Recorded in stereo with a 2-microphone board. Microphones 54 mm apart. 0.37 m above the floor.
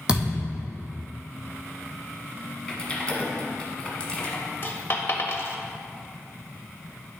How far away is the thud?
About 2.5 m.